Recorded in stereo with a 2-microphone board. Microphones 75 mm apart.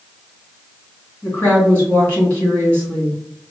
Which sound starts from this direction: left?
A woman speaking, at 1.2 s.